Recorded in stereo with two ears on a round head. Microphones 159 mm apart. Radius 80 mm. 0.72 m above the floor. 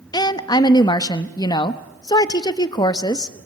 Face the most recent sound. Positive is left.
turn(degrees=25)  # may be behind; listen again after turning